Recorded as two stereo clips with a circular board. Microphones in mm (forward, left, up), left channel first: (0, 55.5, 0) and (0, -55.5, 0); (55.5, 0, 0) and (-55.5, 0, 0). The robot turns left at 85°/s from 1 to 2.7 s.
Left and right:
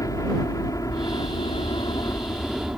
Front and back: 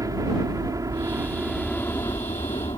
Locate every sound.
0.0 s a helicopter: 135° left; by 2.8 s 10° right